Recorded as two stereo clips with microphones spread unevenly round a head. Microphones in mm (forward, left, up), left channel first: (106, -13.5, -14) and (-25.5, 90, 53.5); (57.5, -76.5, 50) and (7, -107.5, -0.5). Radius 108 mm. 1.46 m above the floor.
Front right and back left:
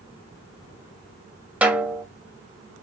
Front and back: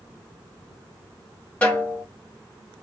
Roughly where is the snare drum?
Left.